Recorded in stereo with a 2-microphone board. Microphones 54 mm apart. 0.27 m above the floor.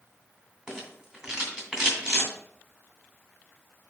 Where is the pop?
I don't hear a pop.